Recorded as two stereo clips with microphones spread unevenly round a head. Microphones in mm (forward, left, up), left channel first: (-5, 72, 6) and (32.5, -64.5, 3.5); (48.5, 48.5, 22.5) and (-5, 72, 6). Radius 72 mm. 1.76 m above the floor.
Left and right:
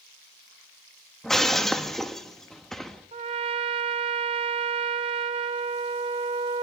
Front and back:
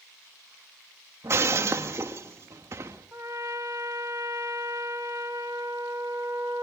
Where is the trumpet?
130° right, 0.7 m.